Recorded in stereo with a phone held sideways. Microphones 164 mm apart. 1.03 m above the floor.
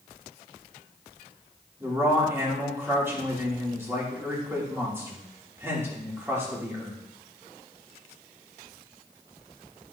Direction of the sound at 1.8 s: 15° right (ahead or behind).